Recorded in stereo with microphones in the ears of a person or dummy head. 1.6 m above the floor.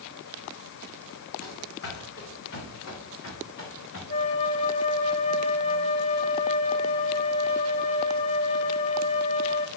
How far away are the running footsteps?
About 4.5 m.